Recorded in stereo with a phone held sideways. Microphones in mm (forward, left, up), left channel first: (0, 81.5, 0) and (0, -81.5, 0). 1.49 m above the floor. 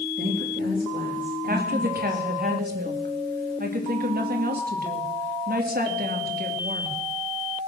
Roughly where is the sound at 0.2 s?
Right.